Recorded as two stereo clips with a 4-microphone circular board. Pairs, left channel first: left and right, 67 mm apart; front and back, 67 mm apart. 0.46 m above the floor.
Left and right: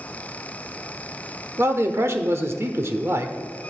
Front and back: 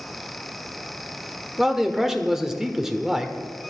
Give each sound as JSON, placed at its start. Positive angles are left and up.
{"t": 1.6, "sound": "a man speaking", "azimuth_deg": -100, "distance_m": 1.3}